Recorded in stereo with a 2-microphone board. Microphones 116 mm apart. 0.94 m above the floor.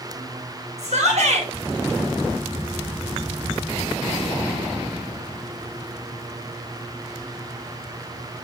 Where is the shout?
80° right, 4 m.